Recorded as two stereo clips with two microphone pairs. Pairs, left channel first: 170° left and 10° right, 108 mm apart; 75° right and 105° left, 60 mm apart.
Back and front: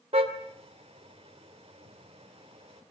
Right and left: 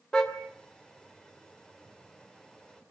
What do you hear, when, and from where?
0.1 s a car horn: 5° left, 3 m